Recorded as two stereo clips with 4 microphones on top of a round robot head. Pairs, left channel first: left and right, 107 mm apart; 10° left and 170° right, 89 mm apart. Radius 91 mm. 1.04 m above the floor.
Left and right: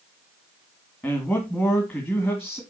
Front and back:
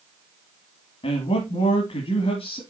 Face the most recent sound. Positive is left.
turn(degrees=20)